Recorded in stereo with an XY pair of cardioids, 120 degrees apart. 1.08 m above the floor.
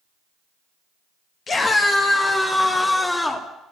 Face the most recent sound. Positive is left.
turn(degrees=25)